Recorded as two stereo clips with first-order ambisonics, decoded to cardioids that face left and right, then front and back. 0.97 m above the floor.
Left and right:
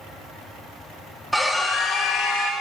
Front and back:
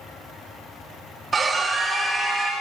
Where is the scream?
175° right, 0.6 m; by 2.5 s 95° left, 0.8 m.